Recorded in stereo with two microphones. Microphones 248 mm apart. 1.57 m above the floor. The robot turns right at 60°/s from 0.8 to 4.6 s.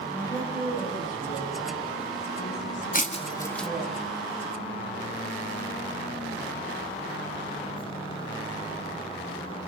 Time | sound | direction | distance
0.1 | a woman speaking | 15° left | 10 m
2.9 | breaking glass | 35° left (ahead or behind) | 1.4 m